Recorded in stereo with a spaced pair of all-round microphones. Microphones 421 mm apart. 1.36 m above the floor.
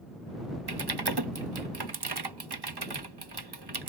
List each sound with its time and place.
0.7 s typing on a keyboard: 65° right (ahead or behind)